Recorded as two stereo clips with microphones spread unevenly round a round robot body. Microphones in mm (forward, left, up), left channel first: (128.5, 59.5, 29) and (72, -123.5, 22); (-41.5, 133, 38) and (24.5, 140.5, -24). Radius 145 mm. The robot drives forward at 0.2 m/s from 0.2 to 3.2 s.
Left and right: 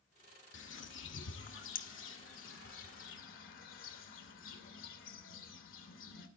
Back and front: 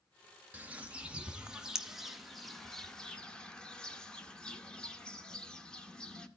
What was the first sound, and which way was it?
A bird, 65° left.